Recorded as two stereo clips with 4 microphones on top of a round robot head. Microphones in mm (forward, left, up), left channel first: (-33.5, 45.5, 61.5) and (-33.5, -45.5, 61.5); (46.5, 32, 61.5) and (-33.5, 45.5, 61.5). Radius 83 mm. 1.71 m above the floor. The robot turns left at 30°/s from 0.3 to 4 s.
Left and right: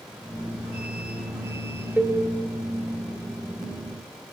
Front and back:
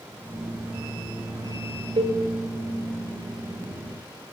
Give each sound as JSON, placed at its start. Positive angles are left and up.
{"t": 2.0, "sound": "a cowbell", "azimuth_deg": -165, "distance_m": 2.0}